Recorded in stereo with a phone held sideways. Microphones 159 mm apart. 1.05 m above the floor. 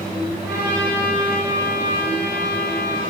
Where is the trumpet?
80° left, 2 m.